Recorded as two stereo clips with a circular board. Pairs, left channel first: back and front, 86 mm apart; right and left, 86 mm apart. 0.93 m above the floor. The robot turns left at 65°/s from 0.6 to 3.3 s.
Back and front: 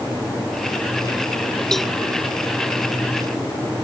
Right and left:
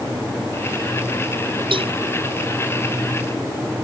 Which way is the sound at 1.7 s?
95° left.